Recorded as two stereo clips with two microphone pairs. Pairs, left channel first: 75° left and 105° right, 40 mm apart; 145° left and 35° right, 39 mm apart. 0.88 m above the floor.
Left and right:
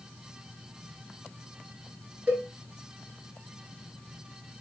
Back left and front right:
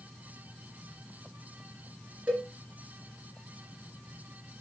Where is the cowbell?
70° right, 1.5 m.